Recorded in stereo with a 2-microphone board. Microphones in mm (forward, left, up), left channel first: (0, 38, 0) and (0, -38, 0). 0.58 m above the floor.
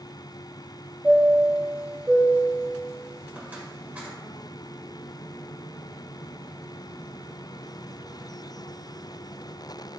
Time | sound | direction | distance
1.0 | a chime | 25° right (ahead or behind) | 1.9 m